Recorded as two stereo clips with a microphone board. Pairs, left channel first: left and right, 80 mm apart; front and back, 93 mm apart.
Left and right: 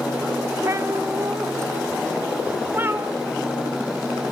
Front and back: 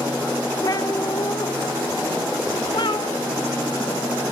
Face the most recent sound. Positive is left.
turn(degrees=-30)